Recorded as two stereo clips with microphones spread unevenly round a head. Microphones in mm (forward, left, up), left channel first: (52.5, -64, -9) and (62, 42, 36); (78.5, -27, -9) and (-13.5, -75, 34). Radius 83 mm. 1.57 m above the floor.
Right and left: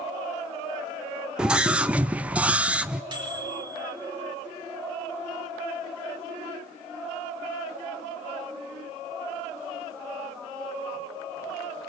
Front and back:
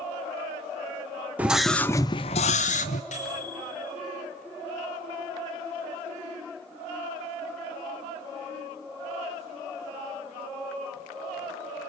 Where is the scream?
150° left, 0.6 m; by 3.0 s 25° left, 0.7 m.